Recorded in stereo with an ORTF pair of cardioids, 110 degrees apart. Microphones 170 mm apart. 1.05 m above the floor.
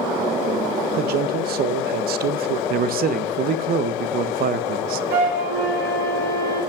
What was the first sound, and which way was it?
A man speaking, 65° right.